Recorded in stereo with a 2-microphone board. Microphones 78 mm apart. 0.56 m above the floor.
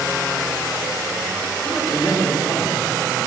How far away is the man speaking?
About 1.5 m.